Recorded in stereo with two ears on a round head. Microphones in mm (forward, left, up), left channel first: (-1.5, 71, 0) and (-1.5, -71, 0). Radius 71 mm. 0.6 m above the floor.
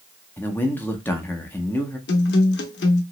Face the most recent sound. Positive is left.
turn(degrees=75)  # may be behind; listen again after turning